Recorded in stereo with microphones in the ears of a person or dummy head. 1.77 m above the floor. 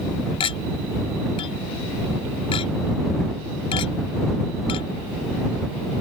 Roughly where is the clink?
Left.